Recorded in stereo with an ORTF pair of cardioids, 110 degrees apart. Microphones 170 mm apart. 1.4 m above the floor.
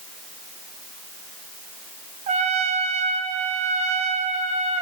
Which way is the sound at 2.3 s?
45° right.